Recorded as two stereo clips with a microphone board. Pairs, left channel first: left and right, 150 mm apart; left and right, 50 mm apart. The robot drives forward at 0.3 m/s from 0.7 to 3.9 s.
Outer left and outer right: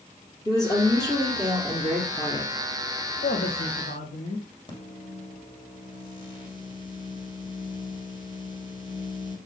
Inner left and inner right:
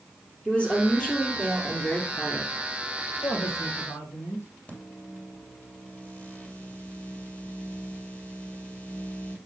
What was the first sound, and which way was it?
A woman speaking, 25° left (ahead or behind).